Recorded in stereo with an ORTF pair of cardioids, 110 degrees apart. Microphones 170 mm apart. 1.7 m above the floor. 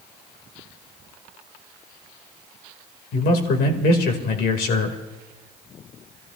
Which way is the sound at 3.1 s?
70° left.